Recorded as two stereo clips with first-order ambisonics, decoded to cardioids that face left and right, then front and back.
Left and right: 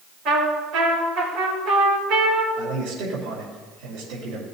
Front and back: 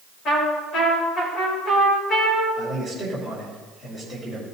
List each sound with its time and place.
0.2 s a trumpet: 50° right, 4.5 m
2.6 s a man speaking: 70° right, 3 m